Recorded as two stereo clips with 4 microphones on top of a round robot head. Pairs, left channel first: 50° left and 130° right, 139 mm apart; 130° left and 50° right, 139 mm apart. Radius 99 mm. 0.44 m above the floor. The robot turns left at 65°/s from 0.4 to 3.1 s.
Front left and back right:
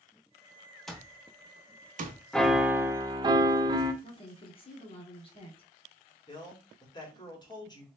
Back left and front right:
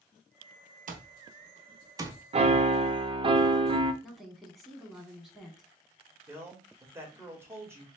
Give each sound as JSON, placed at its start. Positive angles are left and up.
{"t": 0.9, "sound": "an alarm clock", "azimuth_deg": -40, "distance_m": 0.8}
{"t": 2.3, "sound": "a piano", "azimuth_deg": -35, "distance_m": 0.6}
{"t": 4.0, "sound": "a woman speaking", "azimuth_deg": 40, "distance_m": 1.6}
{"t": 6.3, "sound": "a man speaking", "azimuth_deg": 10, "distance_m": 1.6}